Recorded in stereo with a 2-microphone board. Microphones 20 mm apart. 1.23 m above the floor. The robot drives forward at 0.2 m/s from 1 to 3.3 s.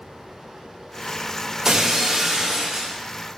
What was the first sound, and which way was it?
Breaking glass, 30° right (ahead or behind).